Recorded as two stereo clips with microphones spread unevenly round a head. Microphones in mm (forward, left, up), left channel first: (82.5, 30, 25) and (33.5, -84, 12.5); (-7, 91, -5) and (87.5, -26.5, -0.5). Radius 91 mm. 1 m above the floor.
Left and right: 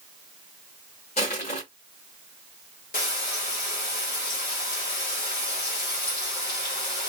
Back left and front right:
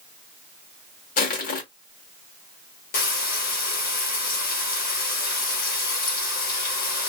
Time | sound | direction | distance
1.2 | crushing | 110° left | 1.1 m
2.9 | frying | 105° left | 1.3 m